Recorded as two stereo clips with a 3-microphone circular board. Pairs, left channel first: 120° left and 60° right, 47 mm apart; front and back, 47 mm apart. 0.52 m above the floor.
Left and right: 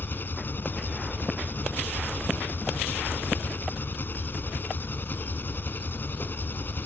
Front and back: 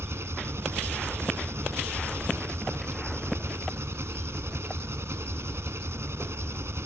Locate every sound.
0.0 s an engine running: 165° left